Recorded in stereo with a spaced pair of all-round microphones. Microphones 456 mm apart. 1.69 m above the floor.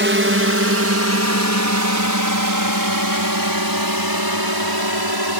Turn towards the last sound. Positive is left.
turn(degrees=-55)  # may be behind; listen again after turning